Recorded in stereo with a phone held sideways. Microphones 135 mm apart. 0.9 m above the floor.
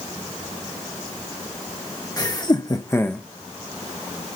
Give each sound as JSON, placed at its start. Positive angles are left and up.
{"t": 2.2, "sound": "laughter", "side_deg": 30, "distance_m": 1.2}